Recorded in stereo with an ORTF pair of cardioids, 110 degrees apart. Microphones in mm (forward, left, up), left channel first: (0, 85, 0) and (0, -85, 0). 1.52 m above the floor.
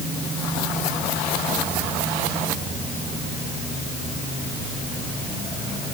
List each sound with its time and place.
Only background noise.